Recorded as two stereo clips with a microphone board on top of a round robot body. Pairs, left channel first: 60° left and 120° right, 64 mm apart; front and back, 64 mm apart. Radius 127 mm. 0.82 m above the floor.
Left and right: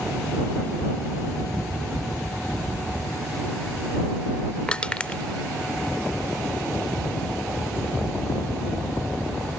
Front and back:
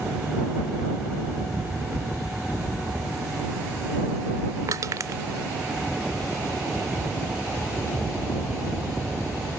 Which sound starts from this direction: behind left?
Crushing, at 4.7 s.